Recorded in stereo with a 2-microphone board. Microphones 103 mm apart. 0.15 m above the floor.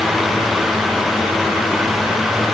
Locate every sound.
Only background noise.